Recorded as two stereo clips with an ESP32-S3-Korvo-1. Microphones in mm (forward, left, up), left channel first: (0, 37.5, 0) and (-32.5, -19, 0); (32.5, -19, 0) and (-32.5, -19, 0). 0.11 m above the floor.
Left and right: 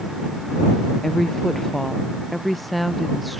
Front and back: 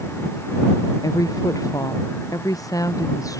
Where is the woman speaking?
25° right; by 3.4 s 30° right.